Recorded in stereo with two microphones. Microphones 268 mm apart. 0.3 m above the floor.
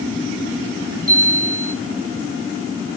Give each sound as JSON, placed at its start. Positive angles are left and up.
{"t": 1.1, "sound": "a chime", "side_deg": -55, "distance_m": 1.8}